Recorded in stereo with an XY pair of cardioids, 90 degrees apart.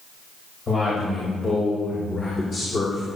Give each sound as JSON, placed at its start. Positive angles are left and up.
{"t": 0.7, "sound": "a man speaking", "azimuth_deg": 40, "distance_m": 5.5}